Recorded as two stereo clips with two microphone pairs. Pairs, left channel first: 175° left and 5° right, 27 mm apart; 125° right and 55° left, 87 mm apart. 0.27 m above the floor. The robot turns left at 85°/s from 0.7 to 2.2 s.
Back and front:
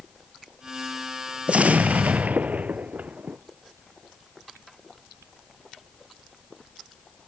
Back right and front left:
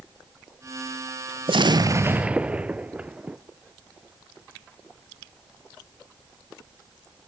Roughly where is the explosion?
Ahead left.